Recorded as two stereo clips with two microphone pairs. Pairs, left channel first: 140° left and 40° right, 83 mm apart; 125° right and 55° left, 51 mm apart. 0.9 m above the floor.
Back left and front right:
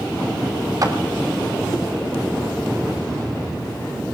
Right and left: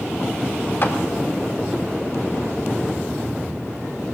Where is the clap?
85° right, 2.0 m.